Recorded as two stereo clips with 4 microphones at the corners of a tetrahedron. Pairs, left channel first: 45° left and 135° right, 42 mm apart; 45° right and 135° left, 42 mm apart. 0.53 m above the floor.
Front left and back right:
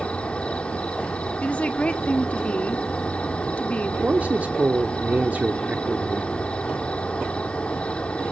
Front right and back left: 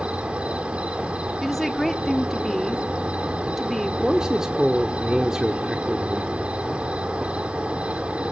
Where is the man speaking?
155° right, 1.0 m.